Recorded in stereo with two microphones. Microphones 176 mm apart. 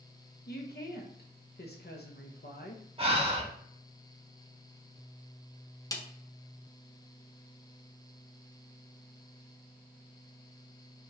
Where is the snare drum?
20° left (ahead or behind), 0.5 m.